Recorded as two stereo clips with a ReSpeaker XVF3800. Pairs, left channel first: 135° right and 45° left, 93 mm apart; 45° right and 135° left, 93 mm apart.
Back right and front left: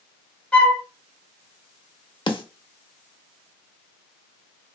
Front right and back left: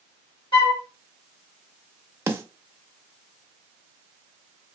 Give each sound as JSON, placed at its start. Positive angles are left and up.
{"t": 0.5, "sound": "a flute", "azimuth_deg": -60, "distance_m": 0.8}
{"t": 2.3, "sound": "a snare drum", "azimuth_deg": -160, "distance_m": 0.5}